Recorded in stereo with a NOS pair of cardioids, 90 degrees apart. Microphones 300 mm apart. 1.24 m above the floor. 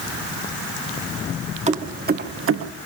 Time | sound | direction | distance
1.7 | keys jangling | 25° right | 1.7 m